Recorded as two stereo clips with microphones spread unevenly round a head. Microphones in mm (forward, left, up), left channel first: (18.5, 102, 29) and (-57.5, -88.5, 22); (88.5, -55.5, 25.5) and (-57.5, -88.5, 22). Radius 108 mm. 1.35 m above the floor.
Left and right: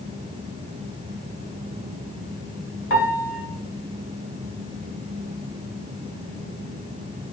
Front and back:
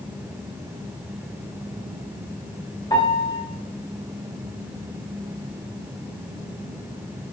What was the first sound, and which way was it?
A piano, 85° left.